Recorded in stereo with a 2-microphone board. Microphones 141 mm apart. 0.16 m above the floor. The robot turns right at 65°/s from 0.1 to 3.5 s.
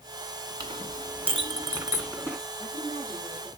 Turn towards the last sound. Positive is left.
turn(degrees=-160)